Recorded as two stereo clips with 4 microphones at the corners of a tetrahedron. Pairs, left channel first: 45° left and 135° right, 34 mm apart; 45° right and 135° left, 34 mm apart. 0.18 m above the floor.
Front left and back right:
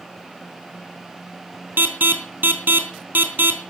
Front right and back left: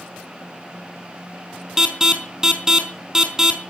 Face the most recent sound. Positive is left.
turn(degrees=-150)